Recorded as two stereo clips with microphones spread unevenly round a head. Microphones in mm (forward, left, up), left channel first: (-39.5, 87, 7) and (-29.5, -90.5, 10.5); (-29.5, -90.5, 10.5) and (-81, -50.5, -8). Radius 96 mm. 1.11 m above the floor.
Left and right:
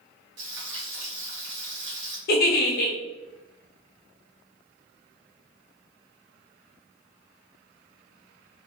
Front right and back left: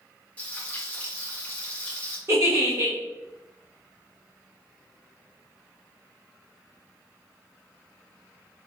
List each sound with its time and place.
0.4 s frying: 100° right, 1.7 m
2.3 s a giggle: 105° left, 0.9 m